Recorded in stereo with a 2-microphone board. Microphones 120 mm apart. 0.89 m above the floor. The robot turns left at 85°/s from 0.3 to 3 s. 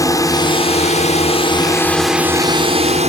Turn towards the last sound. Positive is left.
turn(degrees=-80)